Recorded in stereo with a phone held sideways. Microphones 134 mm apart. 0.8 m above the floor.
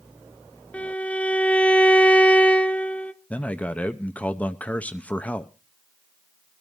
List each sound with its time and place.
0.7 s a violin: 10° left (ahead or behind), 0.6 m
3.3 s a man speaking: 10° left (ahead or behind), 0.6 m